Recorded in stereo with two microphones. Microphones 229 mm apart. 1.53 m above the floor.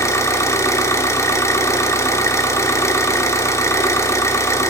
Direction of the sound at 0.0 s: 15° left (ahead or behind).